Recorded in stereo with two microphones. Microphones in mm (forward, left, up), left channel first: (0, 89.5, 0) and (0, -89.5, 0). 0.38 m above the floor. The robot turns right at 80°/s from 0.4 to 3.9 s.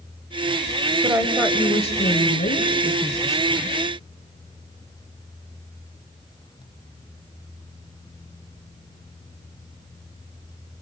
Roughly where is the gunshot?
I don't hear a gunshot.